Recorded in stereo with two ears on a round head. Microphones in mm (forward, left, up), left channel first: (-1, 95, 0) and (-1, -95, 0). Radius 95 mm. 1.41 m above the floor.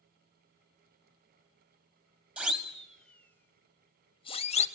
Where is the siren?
5° right (ahead or behind), 2 m; by 4.7 s 35° left (ahead or behind), 1.7 m.